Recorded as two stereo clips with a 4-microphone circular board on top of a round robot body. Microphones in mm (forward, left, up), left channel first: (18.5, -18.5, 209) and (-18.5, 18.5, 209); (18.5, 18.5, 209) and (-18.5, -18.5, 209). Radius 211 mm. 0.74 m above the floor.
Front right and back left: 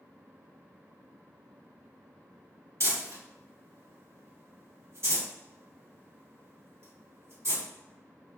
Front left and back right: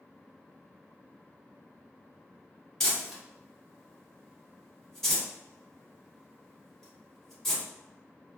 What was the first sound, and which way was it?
Crumpling, 125° left.